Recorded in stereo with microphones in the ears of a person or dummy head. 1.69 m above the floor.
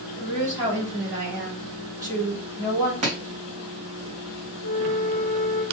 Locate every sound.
0.2 s a woman speaking: 15° right (ahead or behind), 1.5 m
3.0 s chopping: 40° right (ahead or behind), 1.2 m
4.6 s a flute: 45° right (ahead or behind), 1.3 m